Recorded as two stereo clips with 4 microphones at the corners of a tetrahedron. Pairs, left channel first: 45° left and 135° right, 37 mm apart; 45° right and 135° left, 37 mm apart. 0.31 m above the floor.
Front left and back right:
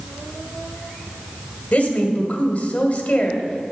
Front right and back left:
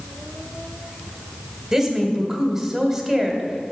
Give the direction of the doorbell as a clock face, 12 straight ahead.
No doorbell in this recording.